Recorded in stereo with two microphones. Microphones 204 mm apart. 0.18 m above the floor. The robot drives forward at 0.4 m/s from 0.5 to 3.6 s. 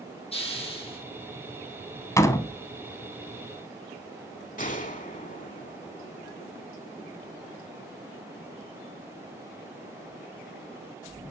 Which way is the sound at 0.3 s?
25° left (ahead or behind).